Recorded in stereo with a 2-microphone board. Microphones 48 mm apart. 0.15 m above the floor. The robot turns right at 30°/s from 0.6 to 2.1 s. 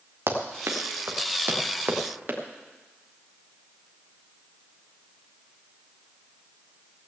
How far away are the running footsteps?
About 2.5 m.